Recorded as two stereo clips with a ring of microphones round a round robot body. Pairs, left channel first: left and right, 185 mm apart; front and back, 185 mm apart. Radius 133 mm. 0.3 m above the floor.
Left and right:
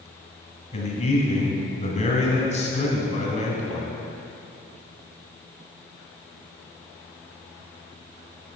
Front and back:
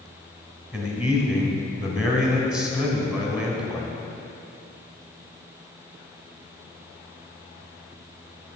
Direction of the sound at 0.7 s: 100° left.